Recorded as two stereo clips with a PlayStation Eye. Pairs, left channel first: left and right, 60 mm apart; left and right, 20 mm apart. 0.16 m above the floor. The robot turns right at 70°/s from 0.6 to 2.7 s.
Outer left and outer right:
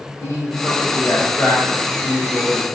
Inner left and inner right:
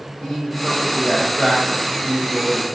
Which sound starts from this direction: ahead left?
A man speaking, at 0.2 s.